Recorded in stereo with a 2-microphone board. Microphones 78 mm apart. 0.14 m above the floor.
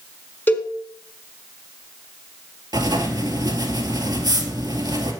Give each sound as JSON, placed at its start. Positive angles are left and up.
{"t": 0.5, "sound": "a cowbell", "side_deg": 25, "distance_m": 1.3}
{"t": 2.7, "sound": "writing", "side_deg": -60, "distance_m": 1.8}